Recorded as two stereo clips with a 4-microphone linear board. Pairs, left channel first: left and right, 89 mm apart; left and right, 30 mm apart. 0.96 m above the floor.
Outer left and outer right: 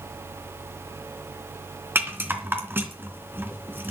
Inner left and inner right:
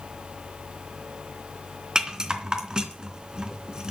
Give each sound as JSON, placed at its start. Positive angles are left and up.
{"t": 1.9, "sound": "a rattle", "side_deg": -20, "distance_m": 3.0}